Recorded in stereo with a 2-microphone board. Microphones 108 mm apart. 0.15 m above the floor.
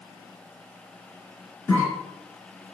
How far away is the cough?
About 1.9 m.